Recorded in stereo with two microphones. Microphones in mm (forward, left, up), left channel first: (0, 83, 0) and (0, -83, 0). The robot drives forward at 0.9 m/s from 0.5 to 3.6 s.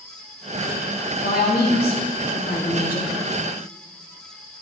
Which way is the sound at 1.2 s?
65° left (ahead or behind).